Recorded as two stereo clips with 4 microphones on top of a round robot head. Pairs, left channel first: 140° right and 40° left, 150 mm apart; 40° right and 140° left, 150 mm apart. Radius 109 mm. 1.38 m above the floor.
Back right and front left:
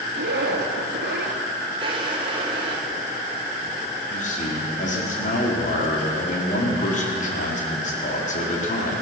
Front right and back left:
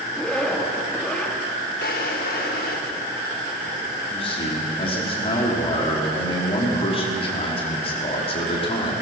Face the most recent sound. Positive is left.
turn(degrees=-95)